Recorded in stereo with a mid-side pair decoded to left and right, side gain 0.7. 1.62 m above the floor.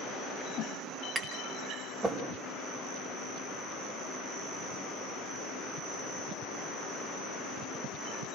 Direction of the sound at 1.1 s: 20° right.